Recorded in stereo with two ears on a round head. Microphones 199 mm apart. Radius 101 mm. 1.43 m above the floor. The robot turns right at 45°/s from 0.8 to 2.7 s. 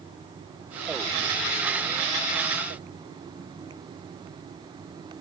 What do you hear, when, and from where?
Only background noise.